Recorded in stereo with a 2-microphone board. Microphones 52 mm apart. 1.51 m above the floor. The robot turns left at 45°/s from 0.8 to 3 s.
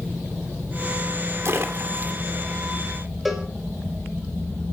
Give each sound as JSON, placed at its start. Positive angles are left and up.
{"t": 1.4, "sound": "a splash", "side_deg": -55, "distance_m": 2.0}
{"t": 3.2, "sound": "a cowbell", "side_deg": 0, "distance_m": 4.0}